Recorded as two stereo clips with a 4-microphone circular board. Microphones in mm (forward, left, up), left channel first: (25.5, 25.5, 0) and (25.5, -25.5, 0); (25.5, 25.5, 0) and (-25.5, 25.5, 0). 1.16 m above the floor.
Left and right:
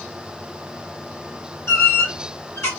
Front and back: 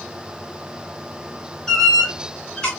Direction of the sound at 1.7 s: 70° left.